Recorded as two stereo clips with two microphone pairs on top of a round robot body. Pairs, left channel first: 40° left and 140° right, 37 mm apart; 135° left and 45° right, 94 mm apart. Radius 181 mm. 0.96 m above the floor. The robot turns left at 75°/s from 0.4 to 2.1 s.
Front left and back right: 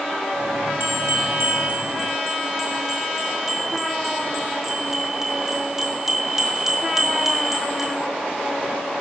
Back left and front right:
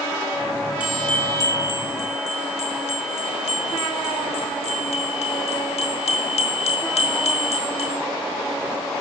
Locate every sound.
0.8 s a bell: 120° right, 1.7 m; by 8.1 s 145° left, 1.7 m